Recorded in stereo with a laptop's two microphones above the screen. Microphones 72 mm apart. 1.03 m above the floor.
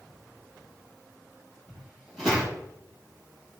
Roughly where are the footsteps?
Centre.